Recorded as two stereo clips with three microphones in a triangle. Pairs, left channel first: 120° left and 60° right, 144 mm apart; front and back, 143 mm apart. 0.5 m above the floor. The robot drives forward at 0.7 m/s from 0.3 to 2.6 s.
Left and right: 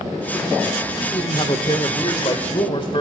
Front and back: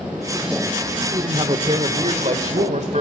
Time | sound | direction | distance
1.0 | a man speaking | 140° left | 1.3 m